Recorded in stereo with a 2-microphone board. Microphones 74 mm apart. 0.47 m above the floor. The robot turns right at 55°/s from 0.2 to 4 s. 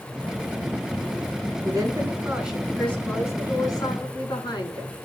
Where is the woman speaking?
55° right, 4.5 m; by 4.9 s 75° left, 4.5 m.